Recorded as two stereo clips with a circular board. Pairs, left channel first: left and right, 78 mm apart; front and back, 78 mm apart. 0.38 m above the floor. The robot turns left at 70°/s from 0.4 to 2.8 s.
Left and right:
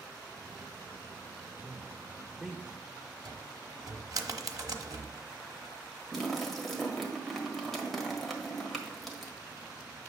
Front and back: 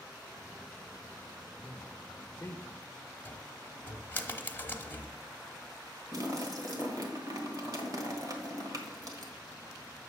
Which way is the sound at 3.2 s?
60° right.